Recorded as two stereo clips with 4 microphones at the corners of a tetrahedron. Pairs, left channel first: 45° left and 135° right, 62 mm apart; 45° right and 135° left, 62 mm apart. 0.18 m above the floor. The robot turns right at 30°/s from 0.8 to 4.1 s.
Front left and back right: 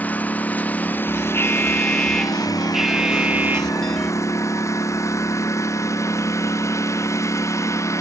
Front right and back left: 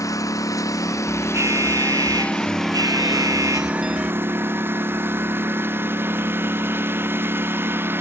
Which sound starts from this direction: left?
An alarm, at 1.3 s.